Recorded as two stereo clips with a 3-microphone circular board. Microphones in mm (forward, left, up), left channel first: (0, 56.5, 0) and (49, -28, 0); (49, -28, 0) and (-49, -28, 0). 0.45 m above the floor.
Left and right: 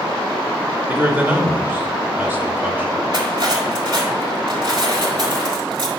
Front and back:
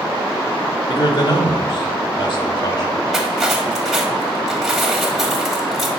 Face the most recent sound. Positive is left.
turn(degrees=-95)